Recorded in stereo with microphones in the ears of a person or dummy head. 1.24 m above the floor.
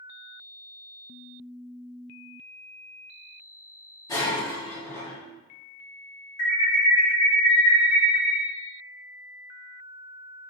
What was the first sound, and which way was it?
Breaking glass, 20° left (ahead or behind).